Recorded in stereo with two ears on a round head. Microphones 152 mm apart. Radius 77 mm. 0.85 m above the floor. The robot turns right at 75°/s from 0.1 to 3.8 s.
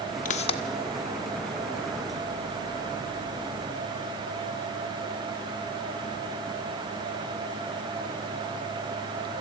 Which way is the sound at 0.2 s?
50° left (ahead or behind).